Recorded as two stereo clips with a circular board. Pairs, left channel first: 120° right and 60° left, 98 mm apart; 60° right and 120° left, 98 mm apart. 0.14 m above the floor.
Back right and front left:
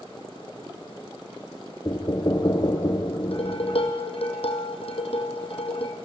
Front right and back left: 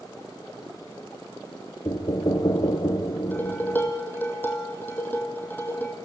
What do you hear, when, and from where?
1.9 s knocking: 90° right, 1.6 m
3.3 s dishes clattering: 130° right, 3 m